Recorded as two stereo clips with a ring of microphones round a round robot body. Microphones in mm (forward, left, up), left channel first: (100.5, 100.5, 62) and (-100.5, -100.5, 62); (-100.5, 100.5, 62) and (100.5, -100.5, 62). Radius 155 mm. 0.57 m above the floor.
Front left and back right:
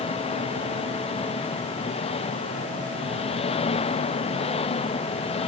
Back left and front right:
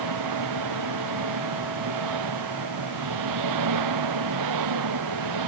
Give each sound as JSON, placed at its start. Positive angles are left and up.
{"t": 0.0, "sound": "an engine running", "azimuth_deg": -25}